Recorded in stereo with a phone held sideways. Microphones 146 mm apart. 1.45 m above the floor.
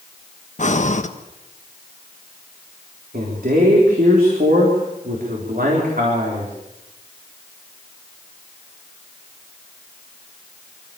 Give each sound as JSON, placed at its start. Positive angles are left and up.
{"t": 0.6, "sound": "breathing", "side_deg": 55, "distance_m": 1.2}
{"t": 3.1, "sound": "a man speaking", "side_deg": -75, "distance_m": 4.0}